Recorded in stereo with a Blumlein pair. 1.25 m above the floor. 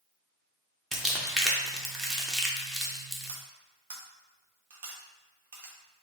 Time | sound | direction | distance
0.9 | crumpling | 10° right | 0.9 m
3.3 | cutlery clinking | 50° right | 1.0 m